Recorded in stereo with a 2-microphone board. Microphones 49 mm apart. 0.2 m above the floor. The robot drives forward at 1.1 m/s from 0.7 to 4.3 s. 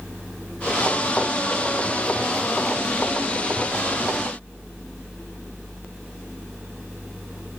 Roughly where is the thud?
I don't hear a thud.